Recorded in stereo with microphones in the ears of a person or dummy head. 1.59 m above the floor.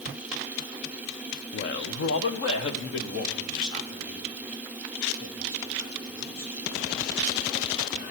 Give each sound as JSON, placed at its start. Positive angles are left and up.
{"t": 1.5, "sound": "a man speaking", "side_deg": 50, "distance_m": 0.6}